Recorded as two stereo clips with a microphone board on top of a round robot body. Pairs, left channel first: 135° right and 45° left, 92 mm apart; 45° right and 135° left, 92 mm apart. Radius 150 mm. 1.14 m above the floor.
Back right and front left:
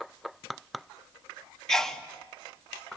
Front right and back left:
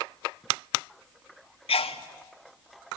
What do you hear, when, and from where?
1.7 s a sneeze: 50° right, 2.5 m